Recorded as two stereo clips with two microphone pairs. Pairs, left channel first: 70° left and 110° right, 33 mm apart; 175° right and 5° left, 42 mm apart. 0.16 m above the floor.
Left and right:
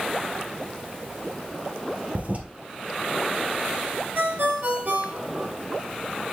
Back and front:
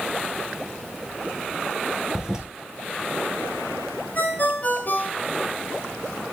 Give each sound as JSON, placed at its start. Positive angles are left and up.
{"t": 2.1, "sound": "a toilet flushing", "azimuth_deg": -75, "distance_m": 1.9}
{"t": 4.2, "sound": "a ringtone", "azimuth_deg": -135, "distance_m": 2.5}